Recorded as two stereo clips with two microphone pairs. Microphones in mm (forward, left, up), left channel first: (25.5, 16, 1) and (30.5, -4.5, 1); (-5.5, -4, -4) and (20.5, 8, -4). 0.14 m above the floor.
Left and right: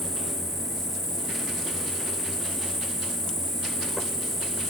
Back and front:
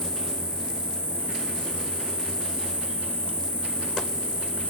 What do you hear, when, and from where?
0.0 s an insect: 165° right, 4.5 m